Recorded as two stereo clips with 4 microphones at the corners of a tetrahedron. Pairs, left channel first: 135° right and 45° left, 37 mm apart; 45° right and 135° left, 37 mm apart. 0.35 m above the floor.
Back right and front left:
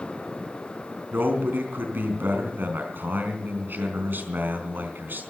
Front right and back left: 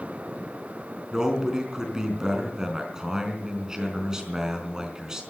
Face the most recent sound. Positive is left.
turn(degrees=65)